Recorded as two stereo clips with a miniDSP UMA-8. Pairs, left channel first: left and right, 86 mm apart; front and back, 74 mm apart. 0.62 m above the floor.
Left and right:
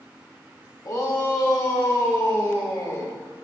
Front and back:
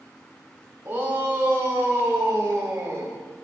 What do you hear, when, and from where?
0.8 s a shout: 125° left, 2 m; by 3.2 s 130° left, 3.5 m